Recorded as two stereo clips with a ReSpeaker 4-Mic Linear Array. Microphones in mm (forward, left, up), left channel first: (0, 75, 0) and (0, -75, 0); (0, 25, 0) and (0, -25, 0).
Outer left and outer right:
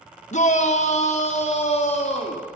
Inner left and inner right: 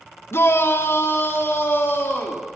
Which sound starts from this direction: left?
A shout, at 0.3 s.